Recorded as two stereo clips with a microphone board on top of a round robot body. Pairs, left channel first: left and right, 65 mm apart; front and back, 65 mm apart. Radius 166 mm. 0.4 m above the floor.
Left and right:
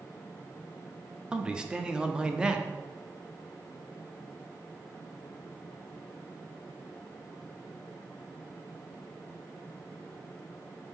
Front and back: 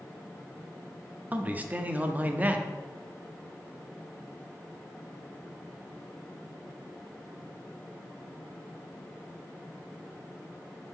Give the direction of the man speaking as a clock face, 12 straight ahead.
5 o'clock.